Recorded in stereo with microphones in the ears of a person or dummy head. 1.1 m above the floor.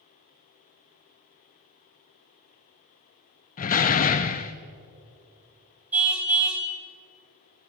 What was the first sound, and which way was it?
A door slam, 40° left (ahead or behind).